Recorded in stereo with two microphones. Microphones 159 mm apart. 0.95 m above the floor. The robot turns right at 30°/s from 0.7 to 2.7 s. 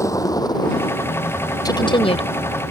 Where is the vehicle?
20° left (ahead or behind); by 2.7 s 80° left.